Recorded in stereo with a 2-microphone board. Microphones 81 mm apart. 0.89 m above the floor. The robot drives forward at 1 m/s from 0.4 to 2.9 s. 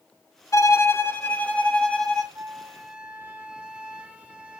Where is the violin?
40° left (ahead or behind), 0.7 m; by 2.2 s 10° left (ahead or behind), 2 m.